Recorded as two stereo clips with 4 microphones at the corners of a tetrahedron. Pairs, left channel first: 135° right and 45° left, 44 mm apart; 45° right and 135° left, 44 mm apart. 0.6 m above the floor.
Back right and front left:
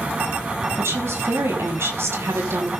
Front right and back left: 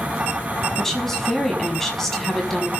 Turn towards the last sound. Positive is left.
turn(degrees=35)